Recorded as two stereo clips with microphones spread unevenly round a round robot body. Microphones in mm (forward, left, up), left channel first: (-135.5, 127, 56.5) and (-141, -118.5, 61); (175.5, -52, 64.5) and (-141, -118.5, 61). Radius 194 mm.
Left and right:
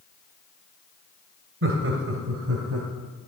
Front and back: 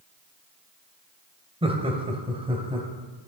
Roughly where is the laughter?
Right.